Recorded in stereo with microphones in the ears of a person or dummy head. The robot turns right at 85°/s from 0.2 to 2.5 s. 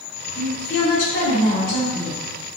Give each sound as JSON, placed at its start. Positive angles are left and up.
{"t": 0.3, "sound": "a woman speaking", "azimuth_deg": 35, "distance_m": 1.4}